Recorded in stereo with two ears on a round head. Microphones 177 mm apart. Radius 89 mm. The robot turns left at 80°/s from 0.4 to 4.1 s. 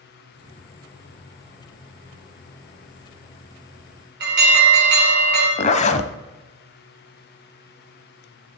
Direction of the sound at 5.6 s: 35° left (ahead or behind).